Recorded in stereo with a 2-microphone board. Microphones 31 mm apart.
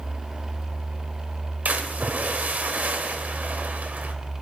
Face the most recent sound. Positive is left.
turn(degrees=-60)  # may be behind; listen again after turning